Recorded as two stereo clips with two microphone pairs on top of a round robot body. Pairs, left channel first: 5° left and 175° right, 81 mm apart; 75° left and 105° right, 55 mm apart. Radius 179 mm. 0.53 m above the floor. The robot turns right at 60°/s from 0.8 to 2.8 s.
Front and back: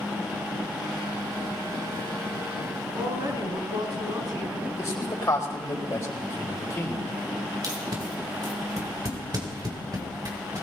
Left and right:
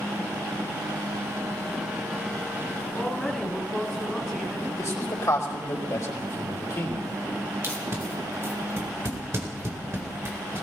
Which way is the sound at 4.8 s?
55° left.